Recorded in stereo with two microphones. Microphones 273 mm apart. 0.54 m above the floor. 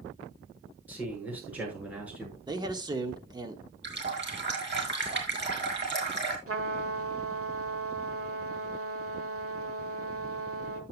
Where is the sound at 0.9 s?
5° right (ahead or behind), 7 m.